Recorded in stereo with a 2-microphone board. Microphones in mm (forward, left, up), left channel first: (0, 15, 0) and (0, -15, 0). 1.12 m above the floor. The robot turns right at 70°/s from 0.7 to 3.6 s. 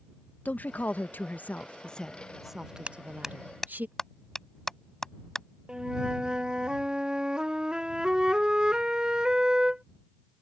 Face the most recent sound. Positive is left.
turn(degrees=-25)  # may be behind; listen again after turning